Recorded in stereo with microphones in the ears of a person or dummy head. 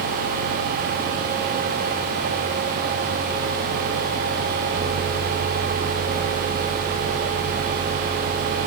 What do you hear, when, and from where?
Only background noise.